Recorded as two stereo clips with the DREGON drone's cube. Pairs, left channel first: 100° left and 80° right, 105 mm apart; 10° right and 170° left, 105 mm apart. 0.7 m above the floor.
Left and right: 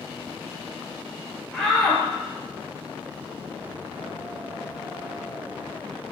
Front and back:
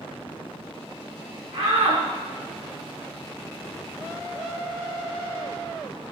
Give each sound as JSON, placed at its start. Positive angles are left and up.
{"t": 1.5, "sound": "a shout", "azimuth_deg": 180, "distance_m": 9.5}